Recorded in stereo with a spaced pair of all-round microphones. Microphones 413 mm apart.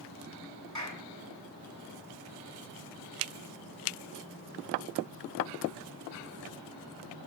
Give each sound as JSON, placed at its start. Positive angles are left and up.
{"t": 0.8, "sound": "a clap", "side_deg": -45, "distance_m": 8.5}